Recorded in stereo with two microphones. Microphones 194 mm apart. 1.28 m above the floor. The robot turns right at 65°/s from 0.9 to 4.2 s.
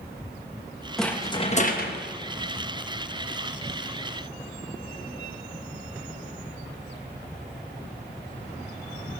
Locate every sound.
1.0 s a rattle: straight ahead, 1.0 m; by 2.0 s 70° left, 1.0 m